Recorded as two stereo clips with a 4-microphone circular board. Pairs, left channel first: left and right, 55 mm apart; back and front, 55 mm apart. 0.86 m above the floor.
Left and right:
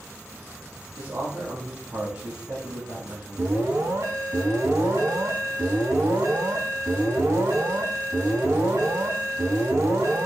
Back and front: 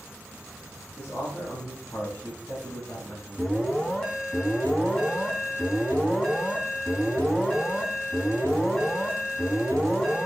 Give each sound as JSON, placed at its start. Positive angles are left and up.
{"t": 1.0, "sound": "a man speaking", "azimuth_deg": -130, "distance_m": 5.0}
{"t": 3.4, "sound": "an alarm", "azimuth_deg": -100, "distance_m": 4.5}